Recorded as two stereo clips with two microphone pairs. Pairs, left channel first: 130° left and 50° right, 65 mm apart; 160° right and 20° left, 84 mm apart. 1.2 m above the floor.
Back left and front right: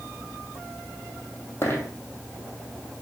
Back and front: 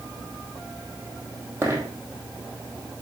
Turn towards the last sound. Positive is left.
turn(degrees=80)